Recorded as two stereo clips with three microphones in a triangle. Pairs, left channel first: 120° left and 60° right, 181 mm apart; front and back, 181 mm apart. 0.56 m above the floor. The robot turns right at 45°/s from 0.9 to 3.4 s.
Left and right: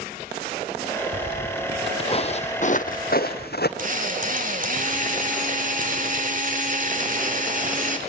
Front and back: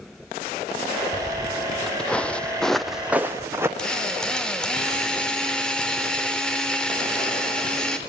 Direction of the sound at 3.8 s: 85° right.